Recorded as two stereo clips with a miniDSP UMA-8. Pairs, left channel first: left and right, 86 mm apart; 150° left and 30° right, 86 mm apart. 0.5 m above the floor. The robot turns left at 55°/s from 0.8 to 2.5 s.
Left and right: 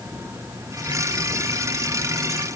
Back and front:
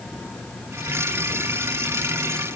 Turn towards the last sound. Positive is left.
No sound to turn to.